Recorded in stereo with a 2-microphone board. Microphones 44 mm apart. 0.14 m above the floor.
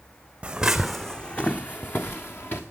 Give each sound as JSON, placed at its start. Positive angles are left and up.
{"t": 0.4, "sound": "footsteps", "side_deg": -25, "distance_m": 0.6}